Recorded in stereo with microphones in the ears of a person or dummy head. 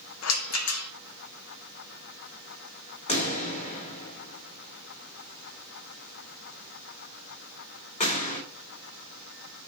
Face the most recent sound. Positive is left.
turn(degrees=30)  # may be behind; listen again after turning